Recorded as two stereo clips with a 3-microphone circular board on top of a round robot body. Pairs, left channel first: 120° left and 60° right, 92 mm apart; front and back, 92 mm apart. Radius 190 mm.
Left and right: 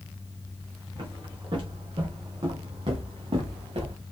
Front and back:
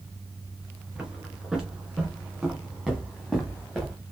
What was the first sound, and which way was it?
Footsteps, 100° right.